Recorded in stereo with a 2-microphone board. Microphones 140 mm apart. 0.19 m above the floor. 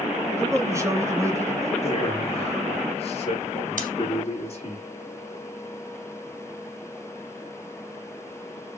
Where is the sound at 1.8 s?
45° left (ahead or behind), 3 m.